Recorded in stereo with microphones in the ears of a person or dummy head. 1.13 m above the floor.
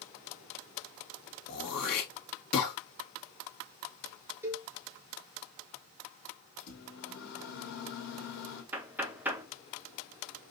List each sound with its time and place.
1.5 s throat clearing: 55° left (ahead or behind), 2 m
4.4 s a cowbell: 10° right (ahead or behind), 1.1 m
6.6 s a microwave: 60° left (ahead or behind), 2 m
8.7 s knocking: 5° right (ahead or behind), 0.8 m